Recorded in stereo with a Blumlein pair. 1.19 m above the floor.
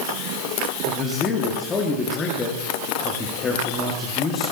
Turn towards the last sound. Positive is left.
turn(degrees=20)